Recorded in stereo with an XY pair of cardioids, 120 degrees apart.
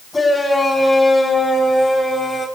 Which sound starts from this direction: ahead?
A shout, at 0.1 s.